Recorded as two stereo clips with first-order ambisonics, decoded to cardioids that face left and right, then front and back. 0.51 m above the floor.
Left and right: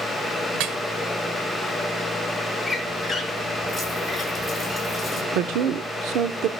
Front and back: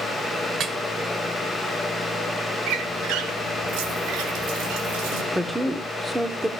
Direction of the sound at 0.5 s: 120° right.